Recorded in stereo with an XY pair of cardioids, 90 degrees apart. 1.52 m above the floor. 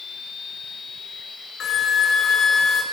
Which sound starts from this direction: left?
A flute, at 1.6 s.